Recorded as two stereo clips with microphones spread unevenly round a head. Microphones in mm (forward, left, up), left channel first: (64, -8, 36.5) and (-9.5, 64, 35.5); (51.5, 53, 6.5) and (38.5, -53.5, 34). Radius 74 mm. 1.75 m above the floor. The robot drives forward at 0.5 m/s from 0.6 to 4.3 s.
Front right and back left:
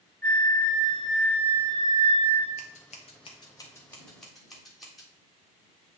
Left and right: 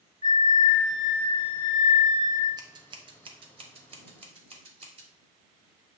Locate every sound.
0.2 s a flute: 30° left, 0.8 m; by 2.5 s 155° left, 0.8 m
2.6 s scissors: 65° right, 0.8 m; by 5.1 s 135° right, 1.0 m